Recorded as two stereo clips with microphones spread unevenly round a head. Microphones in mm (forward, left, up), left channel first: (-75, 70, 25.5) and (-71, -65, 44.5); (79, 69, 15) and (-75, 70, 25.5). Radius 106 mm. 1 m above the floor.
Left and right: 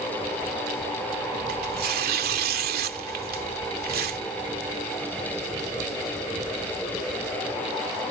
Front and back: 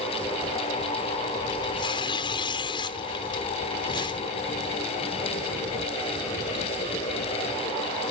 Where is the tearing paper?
70° right.